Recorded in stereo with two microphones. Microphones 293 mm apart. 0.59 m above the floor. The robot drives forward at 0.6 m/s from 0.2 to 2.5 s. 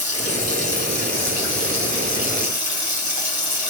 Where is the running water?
55° right (ahead or behind), 3.5 m; by 3.7 s 75° right (ahead or behind), 3 m.